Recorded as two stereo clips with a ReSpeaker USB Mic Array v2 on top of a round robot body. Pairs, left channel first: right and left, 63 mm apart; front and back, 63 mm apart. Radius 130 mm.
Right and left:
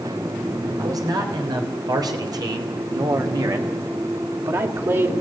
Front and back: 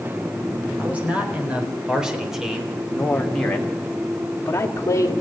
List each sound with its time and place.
0.8 s a man speaking: 110° left, 4.5 m; by 5.1 s 45° left, 2.5 m